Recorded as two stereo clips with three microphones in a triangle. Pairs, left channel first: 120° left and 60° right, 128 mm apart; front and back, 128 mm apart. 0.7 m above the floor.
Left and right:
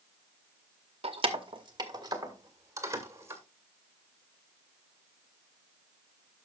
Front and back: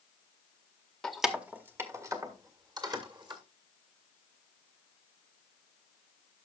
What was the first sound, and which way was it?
Keys jangling, 85° right.